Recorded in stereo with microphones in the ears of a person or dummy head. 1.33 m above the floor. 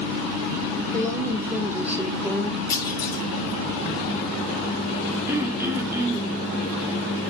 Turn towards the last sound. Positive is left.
turn(degrees=-15)  # may be behind; listen again after turning